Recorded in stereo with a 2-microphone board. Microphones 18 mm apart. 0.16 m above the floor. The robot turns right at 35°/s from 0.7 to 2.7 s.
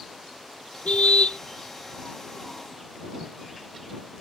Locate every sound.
0.8 s a car horn: 75° left (ahead or behind); by 1.4 s 65° left (ahead or behind)